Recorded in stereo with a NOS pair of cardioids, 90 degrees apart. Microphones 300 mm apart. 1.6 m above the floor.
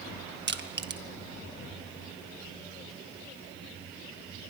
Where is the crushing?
35° right, 1.7 m.